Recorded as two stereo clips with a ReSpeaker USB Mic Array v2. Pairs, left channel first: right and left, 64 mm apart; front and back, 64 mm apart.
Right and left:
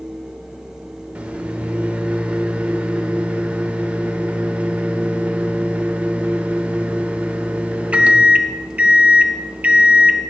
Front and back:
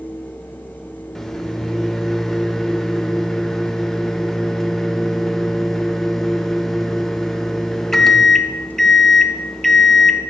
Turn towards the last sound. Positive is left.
turn(degrees=75)